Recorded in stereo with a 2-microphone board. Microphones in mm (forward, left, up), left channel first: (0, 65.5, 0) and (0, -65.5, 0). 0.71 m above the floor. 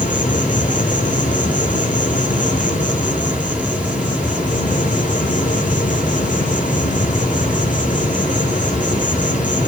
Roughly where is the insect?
Left.